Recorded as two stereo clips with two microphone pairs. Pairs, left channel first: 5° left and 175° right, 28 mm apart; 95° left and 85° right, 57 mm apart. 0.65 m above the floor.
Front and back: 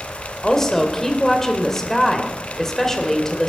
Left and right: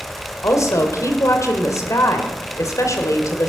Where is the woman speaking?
80° left, 2.5 m.